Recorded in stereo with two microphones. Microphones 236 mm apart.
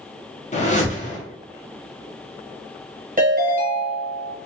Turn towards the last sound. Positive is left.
turn(degrees=-35)  # may be behind; listen again after turning